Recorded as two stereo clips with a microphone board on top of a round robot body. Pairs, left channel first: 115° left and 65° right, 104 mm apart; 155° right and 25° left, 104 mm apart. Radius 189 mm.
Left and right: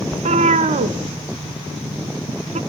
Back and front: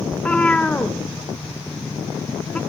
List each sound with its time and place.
0.1 s a cat meowing: 75° right, 0.6 m